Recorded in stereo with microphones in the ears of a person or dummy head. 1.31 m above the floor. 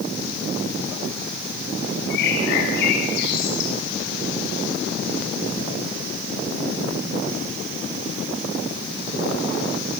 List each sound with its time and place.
2.1 s a bird: 60° left (ahead or behind), 6 m